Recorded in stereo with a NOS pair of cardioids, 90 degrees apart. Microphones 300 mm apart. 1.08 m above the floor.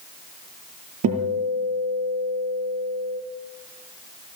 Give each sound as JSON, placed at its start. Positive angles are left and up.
{"t": 1.0, "sound": "a guitar", "azimuth_deg": -55, "distance_m": 7.0}